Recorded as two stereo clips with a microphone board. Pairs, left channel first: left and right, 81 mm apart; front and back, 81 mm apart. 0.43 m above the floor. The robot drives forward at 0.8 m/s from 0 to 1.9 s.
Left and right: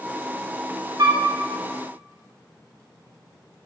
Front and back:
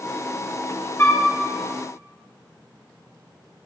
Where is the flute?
55° right, 1.5 m; by 1.2 s 60° right, 1.3 m.